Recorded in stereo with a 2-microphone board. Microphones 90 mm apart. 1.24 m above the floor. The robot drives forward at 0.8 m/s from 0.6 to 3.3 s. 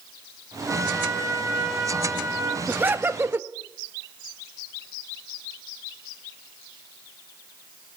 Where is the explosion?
No explosion in this recording.